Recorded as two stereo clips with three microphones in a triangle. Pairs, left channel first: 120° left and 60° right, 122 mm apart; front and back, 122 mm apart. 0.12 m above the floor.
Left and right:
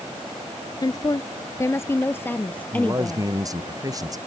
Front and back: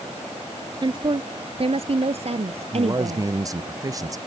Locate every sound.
0.8 s a woman speaking: 155° left; by 3.3 s 160° right
2.7 s a man speaking: 120° right